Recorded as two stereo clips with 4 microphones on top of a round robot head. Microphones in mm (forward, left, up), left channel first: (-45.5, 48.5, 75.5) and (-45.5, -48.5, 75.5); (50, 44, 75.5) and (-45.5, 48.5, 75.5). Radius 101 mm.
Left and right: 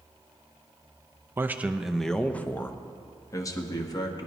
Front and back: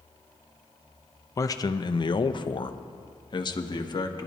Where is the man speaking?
35° right, 0.6 m; by 4.3 s 40° left, 1.6 m.